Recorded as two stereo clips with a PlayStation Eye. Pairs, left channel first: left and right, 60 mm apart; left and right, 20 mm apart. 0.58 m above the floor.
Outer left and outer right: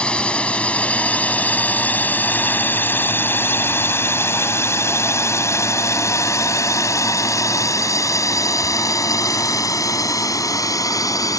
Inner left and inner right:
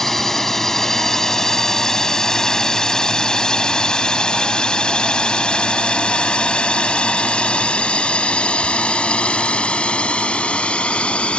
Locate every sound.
0.0 s a drone: 15° left (ahead or behind); by 11.4 s 80° left